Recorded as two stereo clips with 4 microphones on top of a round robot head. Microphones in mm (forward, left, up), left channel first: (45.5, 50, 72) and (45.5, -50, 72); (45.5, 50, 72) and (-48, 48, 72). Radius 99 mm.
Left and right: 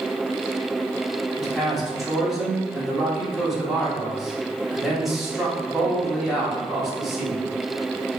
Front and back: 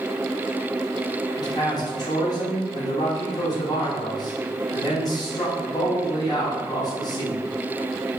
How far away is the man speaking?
About 1.1 m.